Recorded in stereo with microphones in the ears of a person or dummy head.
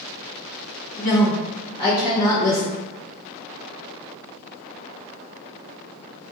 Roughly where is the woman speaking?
Left.